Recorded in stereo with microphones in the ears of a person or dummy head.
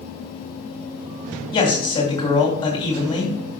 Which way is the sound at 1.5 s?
25° left (ahead or behind).